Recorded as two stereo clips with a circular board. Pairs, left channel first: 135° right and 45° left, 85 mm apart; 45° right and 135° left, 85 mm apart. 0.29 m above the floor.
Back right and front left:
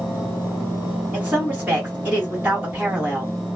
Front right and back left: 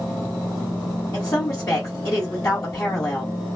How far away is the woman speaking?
About 1.7 m.